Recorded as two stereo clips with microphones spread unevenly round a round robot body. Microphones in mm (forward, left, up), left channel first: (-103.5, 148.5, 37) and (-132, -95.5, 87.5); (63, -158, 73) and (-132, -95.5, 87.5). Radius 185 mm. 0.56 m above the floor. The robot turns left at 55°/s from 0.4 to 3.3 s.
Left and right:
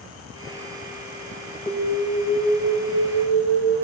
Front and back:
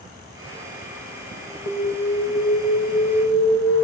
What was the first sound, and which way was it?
An alarm, 15° left.